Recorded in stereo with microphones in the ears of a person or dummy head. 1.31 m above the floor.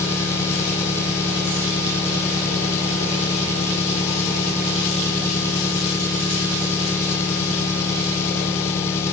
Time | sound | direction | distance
0.0 | an engine running | 20° left (ahead or behind) | ?